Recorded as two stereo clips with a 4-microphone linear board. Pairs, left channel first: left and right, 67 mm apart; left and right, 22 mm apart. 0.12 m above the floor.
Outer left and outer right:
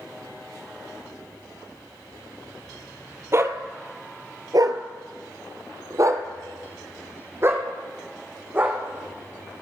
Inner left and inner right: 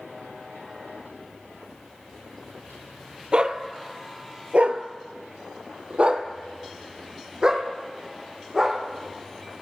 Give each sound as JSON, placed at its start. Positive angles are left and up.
{"t": 3.3, "sound": "a dog barking", "side_deg": -40, "distance_m": 1.3}